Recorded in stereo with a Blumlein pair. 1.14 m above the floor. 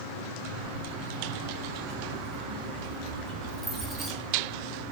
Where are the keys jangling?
55° right, 3 m; by 4.1 s 15° right, 1.8 m.